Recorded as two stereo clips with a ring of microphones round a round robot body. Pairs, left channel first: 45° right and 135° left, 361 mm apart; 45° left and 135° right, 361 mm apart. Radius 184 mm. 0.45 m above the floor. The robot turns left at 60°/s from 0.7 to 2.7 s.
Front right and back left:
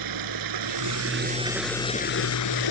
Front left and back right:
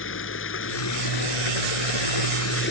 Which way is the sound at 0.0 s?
100° left.